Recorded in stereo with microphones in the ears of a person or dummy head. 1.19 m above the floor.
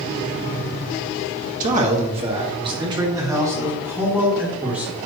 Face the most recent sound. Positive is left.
turn(degrees=-10)  # may be behind; listen again after turning